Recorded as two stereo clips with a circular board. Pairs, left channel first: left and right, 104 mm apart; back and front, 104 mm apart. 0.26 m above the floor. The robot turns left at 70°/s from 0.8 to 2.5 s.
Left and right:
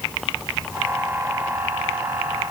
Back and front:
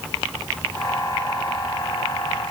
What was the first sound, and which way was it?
Only background noise.